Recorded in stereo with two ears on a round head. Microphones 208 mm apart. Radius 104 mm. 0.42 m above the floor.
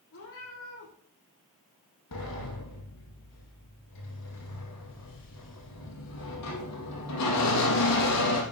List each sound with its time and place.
0.1 s a cat meowing: 65° left (ahead or behind), 6.5 m
2.1 s a sliding door: 85° left, 3.5 m